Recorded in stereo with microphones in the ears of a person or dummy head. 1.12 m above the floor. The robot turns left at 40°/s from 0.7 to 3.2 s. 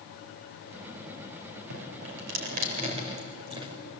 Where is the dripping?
85° right, 3.5 m; by 3.8 s 25° right (ahead or behind), 3.5 m.